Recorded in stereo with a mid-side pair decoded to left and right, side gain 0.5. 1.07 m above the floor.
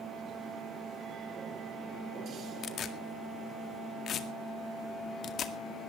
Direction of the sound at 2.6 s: 55° left.